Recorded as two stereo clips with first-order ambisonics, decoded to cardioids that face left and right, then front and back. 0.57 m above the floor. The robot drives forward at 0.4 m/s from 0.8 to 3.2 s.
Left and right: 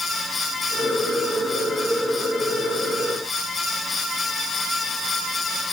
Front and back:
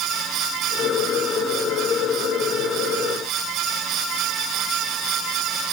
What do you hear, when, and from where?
Only background noise.